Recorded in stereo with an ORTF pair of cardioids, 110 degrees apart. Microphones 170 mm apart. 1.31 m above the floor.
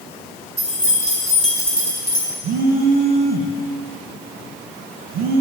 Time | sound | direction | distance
0.6 | keys jangling | 5° left | 2.5 m
2.4 | a phone buzzing | 65° right | 0.8 m